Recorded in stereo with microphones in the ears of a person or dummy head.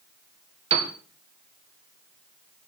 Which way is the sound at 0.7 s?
35° right (ahead or behind).